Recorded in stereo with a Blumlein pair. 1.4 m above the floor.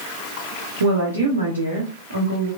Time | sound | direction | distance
0.8 | a woman speaking | 70° right | 0.8 m